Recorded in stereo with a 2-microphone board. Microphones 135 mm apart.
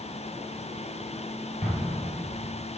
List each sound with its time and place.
1.6 s an explosion: 55° left (ahead or behind), 2 m